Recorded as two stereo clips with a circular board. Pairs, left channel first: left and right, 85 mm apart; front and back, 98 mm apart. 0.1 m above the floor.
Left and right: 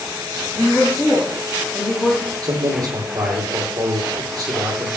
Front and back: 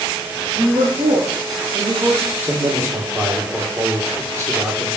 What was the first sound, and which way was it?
A woman speaking, 170° left.